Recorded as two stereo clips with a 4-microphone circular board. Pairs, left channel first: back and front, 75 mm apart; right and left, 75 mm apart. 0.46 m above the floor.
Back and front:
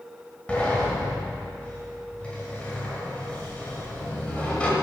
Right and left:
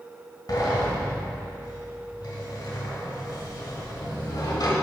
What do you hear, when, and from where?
0.5 s a sliding door: 110° right, 1.4 m